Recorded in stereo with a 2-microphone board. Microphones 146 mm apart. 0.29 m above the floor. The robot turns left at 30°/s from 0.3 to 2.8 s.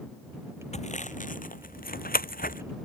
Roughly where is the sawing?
Left.